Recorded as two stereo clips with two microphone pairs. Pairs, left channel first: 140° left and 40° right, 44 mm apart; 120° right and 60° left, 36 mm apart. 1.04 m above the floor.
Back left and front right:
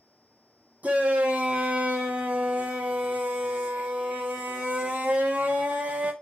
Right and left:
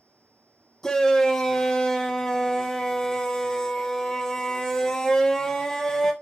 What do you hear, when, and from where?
0.8 s a shout: 55° right, 0.7 m